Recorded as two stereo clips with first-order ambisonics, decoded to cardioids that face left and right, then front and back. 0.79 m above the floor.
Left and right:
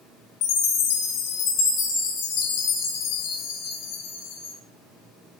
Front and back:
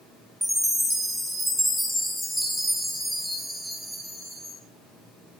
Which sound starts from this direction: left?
A chime, at 0.4 s.